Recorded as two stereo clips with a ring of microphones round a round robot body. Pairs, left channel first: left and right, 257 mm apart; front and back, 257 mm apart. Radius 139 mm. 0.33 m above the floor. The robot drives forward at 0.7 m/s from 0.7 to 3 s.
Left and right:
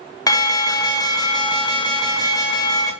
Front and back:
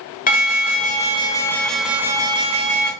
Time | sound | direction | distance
0.3 | an alarm | 25° left | 1.5 m